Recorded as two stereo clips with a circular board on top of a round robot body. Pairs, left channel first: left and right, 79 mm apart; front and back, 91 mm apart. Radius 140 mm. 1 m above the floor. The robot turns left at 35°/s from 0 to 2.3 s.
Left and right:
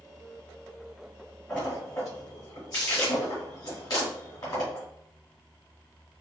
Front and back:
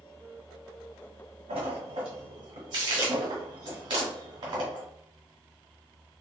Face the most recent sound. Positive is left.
turn(degrees=140)